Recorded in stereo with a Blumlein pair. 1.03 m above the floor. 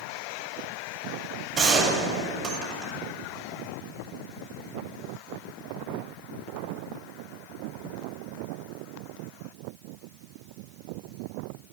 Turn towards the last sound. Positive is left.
turn(degrees=-35)